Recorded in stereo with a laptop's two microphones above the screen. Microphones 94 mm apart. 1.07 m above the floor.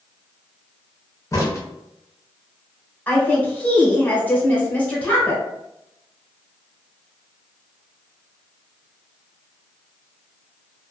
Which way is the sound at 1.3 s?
35° left (ahead or behind).